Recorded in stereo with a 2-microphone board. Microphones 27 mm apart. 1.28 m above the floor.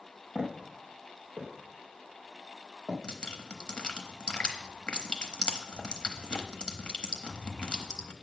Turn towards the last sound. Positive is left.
turn(degrees=35)  # may be behind; listen again after turning